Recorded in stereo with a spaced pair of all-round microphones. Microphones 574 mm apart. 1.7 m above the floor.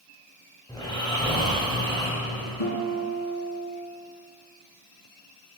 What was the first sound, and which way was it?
Snoring, 10° left (ahead or behind).